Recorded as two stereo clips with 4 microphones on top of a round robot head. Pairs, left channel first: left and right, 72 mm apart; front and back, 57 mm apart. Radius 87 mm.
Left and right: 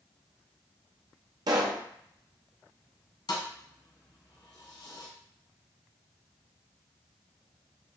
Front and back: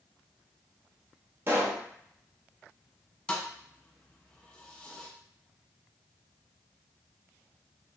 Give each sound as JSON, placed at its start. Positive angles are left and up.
{"t": 1.5, "sound": "a pop", "azimuth_deg": -125, "distance_m": 0.6}
{"t": 3.3, "sound": "a thud", "azimuth_deg": 75, "distance_m": 1.3}